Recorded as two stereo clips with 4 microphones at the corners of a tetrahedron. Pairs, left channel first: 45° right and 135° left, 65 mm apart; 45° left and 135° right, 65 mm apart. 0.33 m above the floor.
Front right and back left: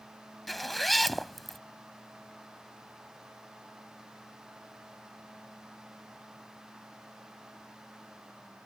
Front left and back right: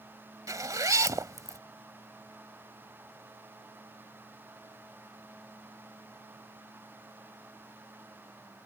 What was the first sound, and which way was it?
A zipper, 135° right.